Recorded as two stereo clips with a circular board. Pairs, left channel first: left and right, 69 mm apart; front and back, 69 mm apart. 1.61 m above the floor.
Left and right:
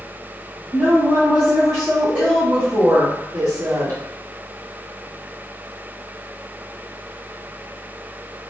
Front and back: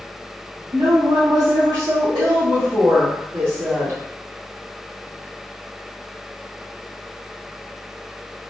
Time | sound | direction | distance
0.7 | a woman speaking | 165° left | 1.4 m